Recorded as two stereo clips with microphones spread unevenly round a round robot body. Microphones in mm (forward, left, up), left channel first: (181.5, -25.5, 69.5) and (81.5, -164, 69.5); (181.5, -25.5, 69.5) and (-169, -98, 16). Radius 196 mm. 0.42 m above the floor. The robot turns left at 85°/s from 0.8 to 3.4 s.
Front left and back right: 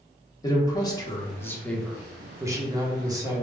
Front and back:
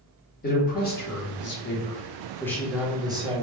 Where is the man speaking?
55° left, 1.0 m; by 3.4 s 165° right, 1.0 m.